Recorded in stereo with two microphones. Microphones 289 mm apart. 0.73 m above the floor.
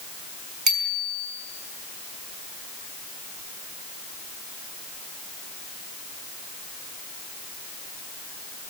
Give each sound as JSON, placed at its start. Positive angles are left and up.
{"t": 0.7, "sound": "a bicycle bell", "side_deg": -80, "distance_m": 5.5}